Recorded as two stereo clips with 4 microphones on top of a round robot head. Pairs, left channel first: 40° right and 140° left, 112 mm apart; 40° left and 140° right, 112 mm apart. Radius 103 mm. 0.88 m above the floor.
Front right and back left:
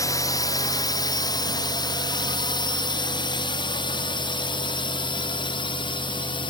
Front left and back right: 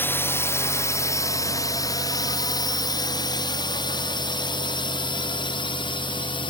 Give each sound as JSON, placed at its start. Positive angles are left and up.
{"t": 0.0, "sound": "a drone", "azimuth_deg": -15}